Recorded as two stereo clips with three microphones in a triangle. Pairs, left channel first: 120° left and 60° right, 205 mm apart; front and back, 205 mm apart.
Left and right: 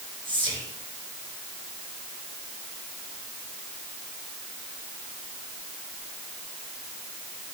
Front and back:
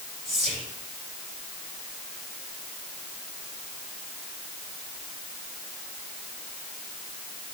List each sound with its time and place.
0.2 s whispering: 125° right, 5 m